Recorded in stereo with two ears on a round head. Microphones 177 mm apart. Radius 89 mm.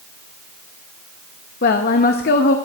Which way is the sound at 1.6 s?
50° left (ahead or behind).